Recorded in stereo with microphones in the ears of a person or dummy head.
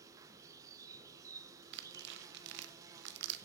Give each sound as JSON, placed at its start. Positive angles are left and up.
{"t": 0.0, "sound": "an insect", "side_deg": -15, "distance_m": 0.7}
{"t": 1.7, "sound": "tearing paper", "side_deg": -60, "distance_m": 0.9}